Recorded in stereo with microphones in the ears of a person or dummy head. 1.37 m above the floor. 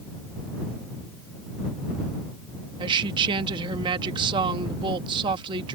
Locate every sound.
2.8 s a woman speaking: 30° right (ahead or behind)